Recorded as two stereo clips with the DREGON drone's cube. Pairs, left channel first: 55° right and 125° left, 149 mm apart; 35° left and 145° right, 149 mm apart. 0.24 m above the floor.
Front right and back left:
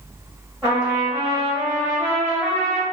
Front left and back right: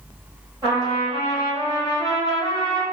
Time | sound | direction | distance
0.6 | a trumpet | 175° right | 1.5 m